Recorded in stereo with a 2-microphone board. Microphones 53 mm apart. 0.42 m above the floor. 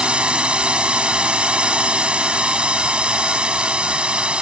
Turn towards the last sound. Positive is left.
turn(degrees=-20)  # may be behind; listen again after turning